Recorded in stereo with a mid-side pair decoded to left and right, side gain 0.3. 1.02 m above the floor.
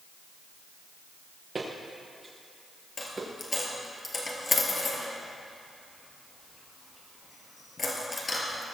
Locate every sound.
1.6 s footsteps: 40° right, 4.5 m
3.0 s a dropped coin: 40° left, 3.5 m